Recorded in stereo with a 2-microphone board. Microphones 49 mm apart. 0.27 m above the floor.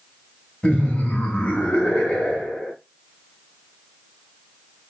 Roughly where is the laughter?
Left.